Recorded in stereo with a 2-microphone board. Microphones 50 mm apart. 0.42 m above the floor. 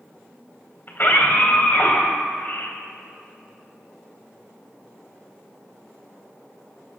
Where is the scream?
45° left (ahead or behind), 3 m.